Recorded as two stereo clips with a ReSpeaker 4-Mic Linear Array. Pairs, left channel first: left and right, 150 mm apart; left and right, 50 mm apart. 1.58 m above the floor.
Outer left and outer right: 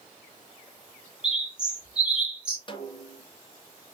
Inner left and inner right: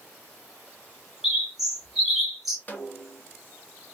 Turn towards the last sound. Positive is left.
turn(degrees=35)  # may be behind; listen again after turning